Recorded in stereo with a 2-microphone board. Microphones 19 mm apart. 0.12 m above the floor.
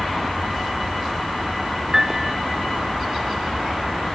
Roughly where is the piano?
Right.